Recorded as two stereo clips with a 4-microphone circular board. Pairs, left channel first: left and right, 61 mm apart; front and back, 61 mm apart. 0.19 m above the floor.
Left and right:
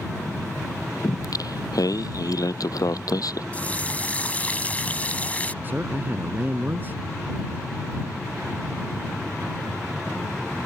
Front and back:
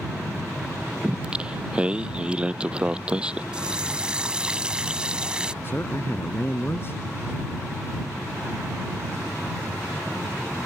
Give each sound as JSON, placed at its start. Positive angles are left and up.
{"t": 1.0, "sound": "singing", "azimuth_deg": 105}
{"t": 3.5, "sound": "a running tap", "azimuth_deg": 125}
{"t": 5.6, "sound": "a man speaking", "azimuth_deg": -40}